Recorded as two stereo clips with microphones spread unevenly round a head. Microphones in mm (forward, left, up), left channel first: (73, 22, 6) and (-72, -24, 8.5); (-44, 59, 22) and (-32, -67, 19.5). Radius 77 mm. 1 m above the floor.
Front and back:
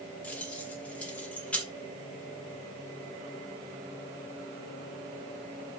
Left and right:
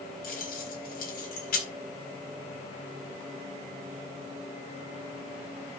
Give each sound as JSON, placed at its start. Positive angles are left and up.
{"t": 0.2, "sound": "keys jangling", "azimuth_deg": 100, "distance_m": 4.0}